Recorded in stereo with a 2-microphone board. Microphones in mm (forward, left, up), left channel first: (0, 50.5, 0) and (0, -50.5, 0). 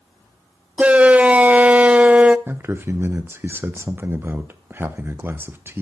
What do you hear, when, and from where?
0.8 s a shout: 15° right (ahead or behind), 0.5 m
2.5 s a man speaking: 20° right (ahead or behind), 1.0 m